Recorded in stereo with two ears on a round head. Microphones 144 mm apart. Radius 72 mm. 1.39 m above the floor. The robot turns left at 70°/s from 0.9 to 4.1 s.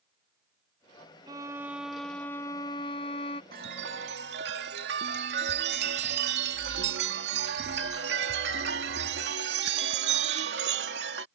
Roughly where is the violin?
Behind right.